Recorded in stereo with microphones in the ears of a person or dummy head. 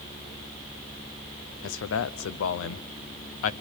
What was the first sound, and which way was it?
A man speaking, 70° left (ahead or behind).